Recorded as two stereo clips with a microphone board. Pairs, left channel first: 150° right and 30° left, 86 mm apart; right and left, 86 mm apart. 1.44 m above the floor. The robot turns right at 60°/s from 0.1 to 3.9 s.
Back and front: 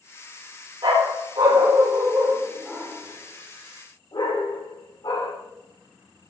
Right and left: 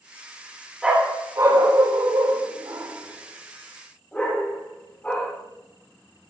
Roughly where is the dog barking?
Ahead.